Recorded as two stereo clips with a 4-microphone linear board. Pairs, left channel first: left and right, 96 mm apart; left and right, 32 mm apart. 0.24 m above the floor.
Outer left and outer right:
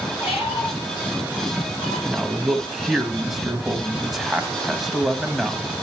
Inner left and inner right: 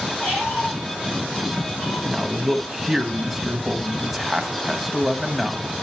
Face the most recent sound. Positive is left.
turn(degrees=0)  # may be behind; listen again after turning